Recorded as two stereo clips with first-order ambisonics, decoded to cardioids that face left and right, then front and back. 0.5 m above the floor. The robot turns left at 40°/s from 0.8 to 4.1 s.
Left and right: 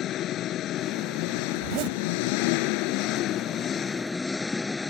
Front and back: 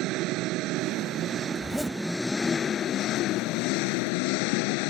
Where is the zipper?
80° right; by 2.0 s 95° right.